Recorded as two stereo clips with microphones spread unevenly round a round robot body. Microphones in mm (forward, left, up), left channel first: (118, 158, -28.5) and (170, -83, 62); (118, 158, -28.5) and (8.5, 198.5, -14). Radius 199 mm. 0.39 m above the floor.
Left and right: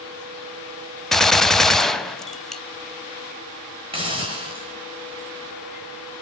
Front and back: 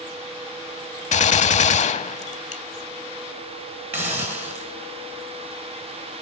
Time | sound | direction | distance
1.1 | a gunshot | 10° left | 0.5 m
3.9 | a hiss | 165° right | 0.7 m